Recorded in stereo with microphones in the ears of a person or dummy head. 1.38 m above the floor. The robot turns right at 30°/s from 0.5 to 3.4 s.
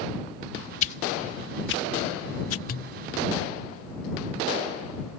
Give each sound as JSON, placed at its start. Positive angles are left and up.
{"t": 0.8, "sound": "a whoosh", "side_deg": 40}
{"t": 2.7, "sound": "a pop", "side_deg": 45}